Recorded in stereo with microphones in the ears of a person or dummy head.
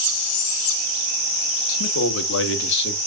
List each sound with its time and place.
1.7 s a man speaking: 80° left, 2.5 m; by 3.0 s 55° left (ahead or behind), 2.5 m